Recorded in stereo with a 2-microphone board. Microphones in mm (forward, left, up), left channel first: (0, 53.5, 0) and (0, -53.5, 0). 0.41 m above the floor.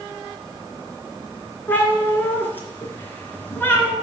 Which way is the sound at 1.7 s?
20° left (ahead or behind).